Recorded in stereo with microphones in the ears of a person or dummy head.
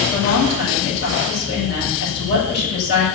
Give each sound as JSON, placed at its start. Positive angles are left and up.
{"t": 0.1, "sound": "a woman speaking", "side_deg": 75, "distance_m": 8.0}